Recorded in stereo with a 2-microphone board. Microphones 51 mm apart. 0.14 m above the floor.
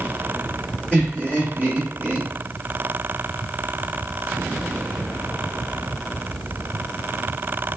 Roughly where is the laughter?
Right.